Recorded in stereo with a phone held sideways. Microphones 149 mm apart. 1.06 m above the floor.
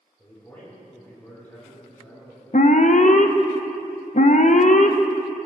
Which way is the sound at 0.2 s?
10° left (ahead or behind).